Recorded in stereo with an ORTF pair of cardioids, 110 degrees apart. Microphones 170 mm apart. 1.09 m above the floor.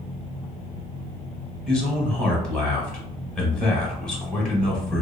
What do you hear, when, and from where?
1.7 s a man speaking: 5° left, 1.0 m